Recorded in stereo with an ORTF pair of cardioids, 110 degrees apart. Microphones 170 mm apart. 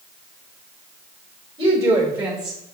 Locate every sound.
1.6 s a woman speaking: 25° right, 1.3 m; by 2.7 s 5° left, 0.9 m